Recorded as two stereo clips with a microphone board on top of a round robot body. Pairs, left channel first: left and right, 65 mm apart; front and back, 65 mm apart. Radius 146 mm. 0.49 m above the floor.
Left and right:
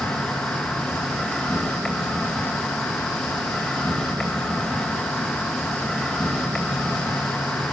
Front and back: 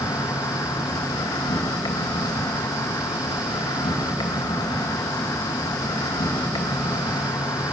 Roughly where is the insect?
Ahead.